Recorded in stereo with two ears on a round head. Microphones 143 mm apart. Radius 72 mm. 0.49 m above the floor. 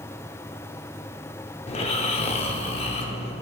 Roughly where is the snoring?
Left.